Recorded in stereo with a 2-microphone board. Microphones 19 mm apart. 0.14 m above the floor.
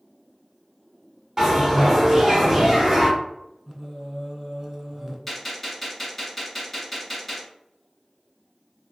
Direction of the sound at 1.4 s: 20° right (ahead or behind).